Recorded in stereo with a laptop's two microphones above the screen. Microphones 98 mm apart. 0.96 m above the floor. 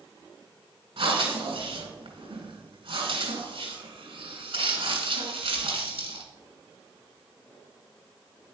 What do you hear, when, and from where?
1.0 s breathing: 70° right (ahead or behind), 2 m